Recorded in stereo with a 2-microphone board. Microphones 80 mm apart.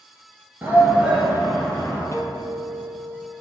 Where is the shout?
25° right (ahead or behind), 2.0 m; by 2.0 s 20° left (ahead or behind), 1.9 m.